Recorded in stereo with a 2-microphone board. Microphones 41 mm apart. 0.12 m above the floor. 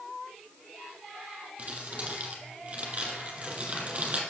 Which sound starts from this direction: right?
Crumpling, at 1.6 s.